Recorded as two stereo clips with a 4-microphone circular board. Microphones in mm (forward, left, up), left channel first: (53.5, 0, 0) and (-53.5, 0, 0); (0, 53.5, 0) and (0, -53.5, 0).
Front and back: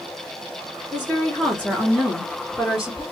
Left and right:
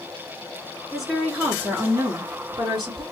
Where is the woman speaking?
Straight ahead, 1.5 m; by 3.0 s 100° right, 1.9 m.